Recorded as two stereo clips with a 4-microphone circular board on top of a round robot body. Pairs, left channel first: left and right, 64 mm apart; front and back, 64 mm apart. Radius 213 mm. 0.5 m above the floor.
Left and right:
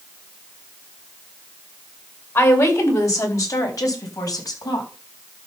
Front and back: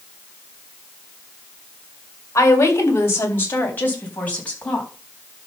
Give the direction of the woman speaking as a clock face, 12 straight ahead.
11 o'clock.